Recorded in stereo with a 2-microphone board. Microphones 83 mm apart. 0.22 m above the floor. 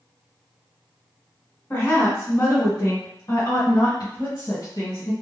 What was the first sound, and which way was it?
A woman speaking, 25° left (ahead or behind).